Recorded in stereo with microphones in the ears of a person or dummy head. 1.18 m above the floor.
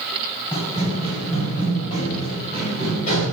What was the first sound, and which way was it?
Running footsteps, 35° left (ahead or behind).